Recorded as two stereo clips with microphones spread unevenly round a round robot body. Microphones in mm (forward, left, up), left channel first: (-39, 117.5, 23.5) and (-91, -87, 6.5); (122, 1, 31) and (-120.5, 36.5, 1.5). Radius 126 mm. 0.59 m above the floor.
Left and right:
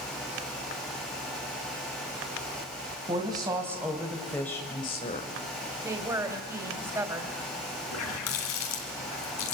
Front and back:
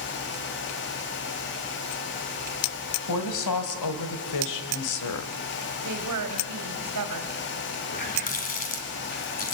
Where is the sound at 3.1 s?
30° right, 3.5 m; by 5.3 s 15° left, 2 m.